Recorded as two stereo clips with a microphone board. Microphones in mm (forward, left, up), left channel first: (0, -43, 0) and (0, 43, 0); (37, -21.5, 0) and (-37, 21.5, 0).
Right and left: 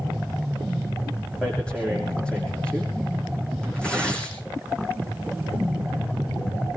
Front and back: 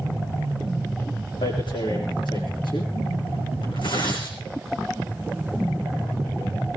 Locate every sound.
1.4 s tearing paper: 15° right, 7 m